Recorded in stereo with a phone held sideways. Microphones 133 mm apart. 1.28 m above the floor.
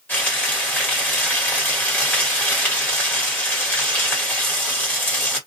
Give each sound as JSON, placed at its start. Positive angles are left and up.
{"t": 0.1, "sound": "frying", "side_deg": 15, "distance_m": 1.4}